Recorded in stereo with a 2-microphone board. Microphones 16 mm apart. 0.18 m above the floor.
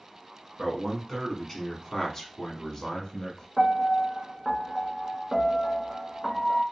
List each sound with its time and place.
0.6 s a man speaking: centre (ahead or behind), 1.6 m; by 3.5 s 40° left (ahead or behind), 1.3 m
3.6 s a piano: 10° left (ahead or behind), 0.6 m